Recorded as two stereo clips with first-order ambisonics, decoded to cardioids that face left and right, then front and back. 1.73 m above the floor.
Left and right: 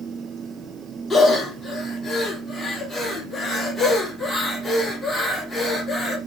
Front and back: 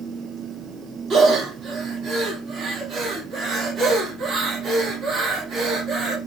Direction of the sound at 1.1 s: 175° left.